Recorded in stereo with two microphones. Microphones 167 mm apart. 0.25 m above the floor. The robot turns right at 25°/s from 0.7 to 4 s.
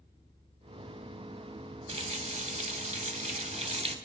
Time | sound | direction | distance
1.9 | a running tap | 115° right | 0.8 m